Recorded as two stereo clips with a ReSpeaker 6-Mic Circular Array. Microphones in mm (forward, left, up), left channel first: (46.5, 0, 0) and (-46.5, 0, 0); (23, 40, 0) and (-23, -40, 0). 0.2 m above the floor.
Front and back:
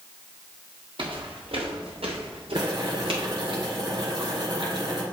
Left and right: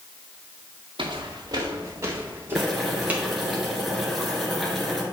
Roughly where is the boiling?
Behind left.